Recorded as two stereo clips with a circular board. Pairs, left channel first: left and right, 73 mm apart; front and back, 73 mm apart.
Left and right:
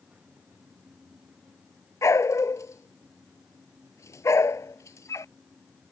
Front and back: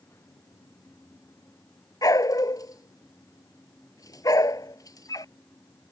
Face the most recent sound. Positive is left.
turn(degrees=40)